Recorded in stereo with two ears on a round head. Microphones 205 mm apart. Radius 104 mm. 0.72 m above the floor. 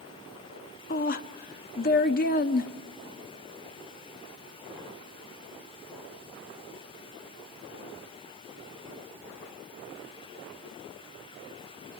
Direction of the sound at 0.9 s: 45° left (ahead or behind).